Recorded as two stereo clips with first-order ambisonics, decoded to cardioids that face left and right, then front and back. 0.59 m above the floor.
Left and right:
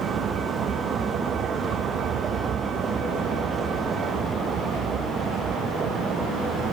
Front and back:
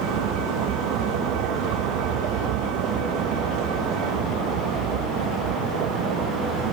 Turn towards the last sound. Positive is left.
turn(degrees=-150)